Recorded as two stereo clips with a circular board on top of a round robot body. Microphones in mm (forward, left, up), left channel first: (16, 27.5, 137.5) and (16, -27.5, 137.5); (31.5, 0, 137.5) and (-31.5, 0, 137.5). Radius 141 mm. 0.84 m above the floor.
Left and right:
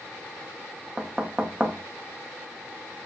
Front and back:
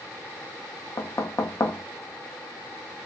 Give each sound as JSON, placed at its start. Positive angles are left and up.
{"t": 1.0, "sound": "knocking", "azimuth_deg": -20, "distance_m": 0.6}